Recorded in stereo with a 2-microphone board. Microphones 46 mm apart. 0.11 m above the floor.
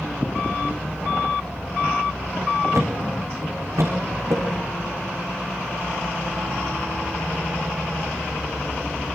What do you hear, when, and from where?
2.7 s a thud: 75° right (ahead or behind), 5.5 m